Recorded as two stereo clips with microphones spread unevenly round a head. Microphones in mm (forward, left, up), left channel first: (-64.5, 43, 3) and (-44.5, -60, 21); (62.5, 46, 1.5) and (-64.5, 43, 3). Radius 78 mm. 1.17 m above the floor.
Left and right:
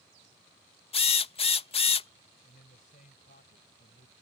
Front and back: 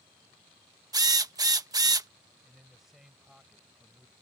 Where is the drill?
120° left.